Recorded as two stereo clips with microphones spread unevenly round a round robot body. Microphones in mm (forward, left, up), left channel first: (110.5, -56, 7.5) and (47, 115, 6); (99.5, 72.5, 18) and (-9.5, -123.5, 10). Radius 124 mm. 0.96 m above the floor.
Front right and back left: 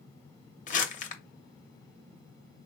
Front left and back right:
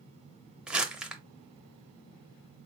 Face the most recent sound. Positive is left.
turn(degrees=-35)